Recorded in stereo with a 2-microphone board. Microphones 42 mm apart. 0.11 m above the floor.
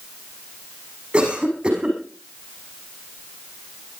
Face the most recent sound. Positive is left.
turn(degrees=-25)  # may be behind; listen again after turning